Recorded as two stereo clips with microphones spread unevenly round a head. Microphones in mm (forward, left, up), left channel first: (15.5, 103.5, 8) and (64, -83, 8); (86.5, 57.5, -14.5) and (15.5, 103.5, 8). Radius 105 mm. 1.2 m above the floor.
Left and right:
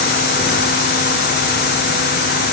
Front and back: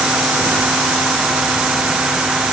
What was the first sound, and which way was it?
Only background noise.